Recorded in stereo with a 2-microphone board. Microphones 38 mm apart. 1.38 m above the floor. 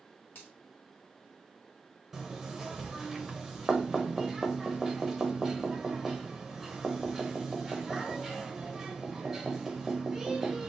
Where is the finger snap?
60° left (ahead or behind), 3 m.